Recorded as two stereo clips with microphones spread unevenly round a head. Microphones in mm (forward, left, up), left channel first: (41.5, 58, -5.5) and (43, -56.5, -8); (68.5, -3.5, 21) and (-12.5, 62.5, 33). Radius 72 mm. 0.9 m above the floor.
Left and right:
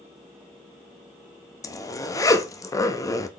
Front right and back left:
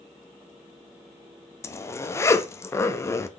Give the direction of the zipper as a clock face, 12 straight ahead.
11 o'clock.